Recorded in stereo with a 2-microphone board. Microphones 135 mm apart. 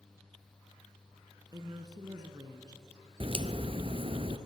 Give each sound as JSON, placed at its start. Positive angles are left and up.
{"t": 1.5, "sound": "a woman speaking", "side_deg": -30, "distance_m": 1.7}
{"t": 3.2, "sound": "a crack", "side_deg": -45, "distance_m": 0.9}